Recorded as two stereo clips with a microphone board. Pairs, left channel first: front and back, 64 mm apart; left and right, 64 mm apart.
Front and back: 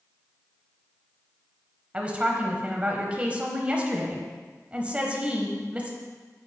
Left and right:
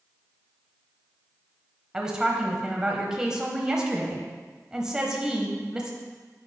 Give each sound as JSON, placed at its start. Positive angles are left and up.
{"t": 1.9, "sound": "a woman speaking", "azimuth_deg": -150, "distance_m": 1.0}